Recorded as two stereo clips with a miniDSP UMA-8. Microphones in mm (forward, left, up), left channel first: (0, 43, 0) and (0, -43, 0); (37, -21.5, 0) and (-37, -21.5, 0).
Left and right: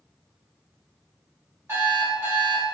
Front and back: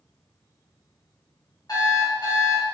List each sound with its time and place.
1.7 s an alarm clock: 30° right, 1.8 m